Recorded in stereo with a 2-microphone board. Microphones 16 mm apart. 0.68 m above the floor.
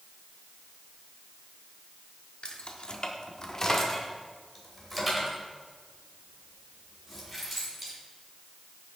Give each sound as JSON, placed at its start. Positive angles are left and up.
{"t": 2.4, "sound": "keys jangling", "side_deg": 65, "distance_m": 1.2}